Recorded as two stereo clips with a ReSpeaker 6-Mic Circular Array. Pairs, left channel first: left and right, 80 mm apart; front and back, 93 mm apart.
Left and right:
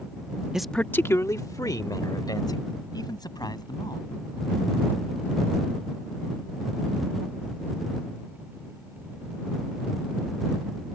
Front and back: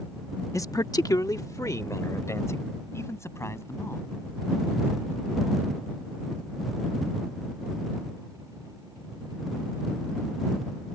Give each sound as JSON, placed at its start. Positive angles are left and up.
{"t": 0.5, "sound": "a man speaking", "azimuth_deg": -15}